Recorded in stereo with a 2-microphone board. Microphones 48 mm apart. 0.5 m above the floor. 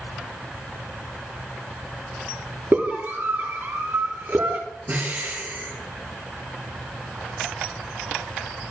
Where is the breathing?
40° right (ahead or behind), 7.5 m.